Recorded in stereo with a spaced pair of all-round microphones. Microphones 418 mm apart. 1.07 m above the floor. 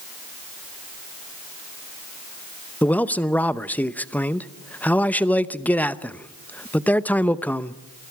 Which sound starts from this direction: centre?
A man speaking, at 2.8 s.